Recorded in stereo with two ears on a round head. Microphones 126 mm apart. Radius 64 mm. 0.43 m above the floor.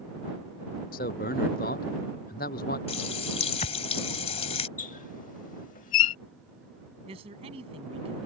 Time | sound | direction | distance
0.9 | a man speaking | 65° left (ahead or behind) | ?
2.9 | a running tap | 45° left (ahead or behind) | ?
4.8 | a squeak | 65° left (ahead or behind) | ?
7.1 | a man speaking | 40° right (ahead or behind) | ?